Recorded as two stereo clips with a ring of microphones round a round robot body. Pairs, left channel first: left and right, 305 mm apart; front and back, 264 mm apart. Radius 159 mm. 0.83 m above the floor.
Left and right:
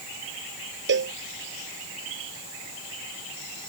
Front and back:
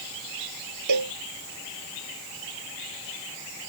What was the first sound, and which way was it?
A cowbell, 145° right.